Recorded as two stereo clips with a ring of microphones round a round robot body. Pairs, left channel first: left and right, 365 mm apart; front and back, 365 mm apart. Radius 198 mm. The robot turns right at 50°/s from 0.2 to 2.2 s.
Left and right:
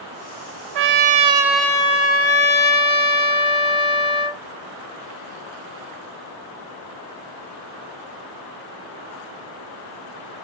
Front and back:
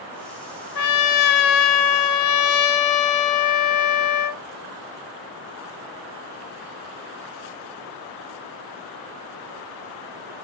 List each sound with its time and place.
0.8 s a trumpet: 40° right, 0.6 m; by 4.4 s 30° left, 0.6 m